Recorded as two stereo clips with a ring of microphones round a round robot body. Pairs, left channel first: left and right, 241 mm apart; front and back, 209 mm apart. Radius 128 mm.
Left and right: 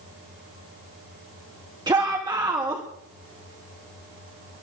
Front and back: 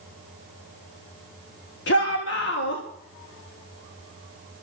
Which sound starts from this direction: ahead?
A shout, at 1.9 s.